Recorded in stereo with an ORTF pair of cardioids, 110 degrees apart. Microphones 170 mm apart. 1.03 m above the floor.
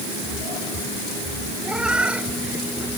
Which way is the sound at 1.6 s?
5° right.